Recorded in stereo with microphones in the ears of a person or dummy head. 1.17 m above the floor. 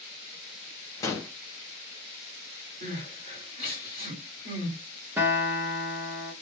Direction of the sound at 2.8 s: 45° right (ahead or behind).